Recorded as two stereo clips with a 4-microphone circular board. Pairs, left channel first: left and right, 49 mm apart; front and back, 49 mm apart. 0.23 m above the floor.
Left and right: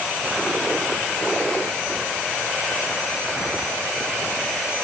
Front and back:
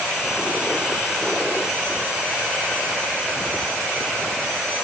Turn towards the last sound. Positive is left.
No sound to turn to.